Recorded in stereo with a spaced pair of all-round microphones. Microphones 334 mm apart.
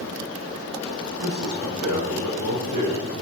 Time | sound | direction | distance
1.2 | a man speaking | 75° right (ahead or behind) | 6 m